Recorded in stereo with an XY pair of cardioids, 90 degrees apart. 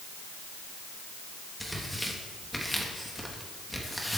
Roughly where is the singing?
No singing in this recording.